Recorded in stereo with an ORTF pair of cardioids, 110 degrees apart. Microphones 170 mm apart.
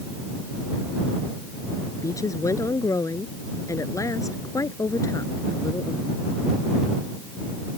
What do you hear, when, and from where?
2.0 s a woman speaking: 20° left